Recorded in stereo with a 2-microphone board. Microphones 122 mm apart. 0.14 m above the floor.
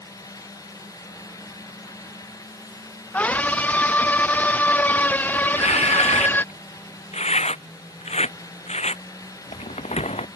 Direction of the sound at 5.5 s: 75° left (ahead or behind).